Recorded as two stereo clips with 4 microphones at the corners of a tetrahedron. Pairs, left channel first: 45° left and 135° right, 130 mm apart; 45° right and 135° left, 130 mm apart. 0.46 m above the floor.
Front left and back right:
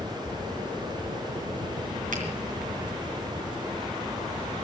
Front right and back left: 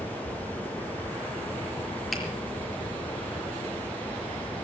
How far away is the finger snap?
About 5.5 m.